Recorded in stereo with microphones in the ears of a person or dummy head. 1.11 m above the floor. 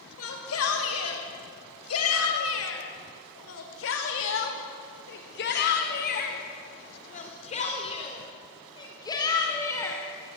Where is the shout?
85° left, 6.5 m; by 10.0 s 15° left (ahead or behind), 4.5 m.